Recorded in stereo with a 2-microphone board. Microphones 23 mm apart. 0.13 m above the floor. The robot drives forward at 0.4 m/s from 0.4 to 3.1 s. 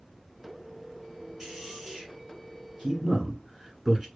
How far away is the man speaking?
About 1.5 m.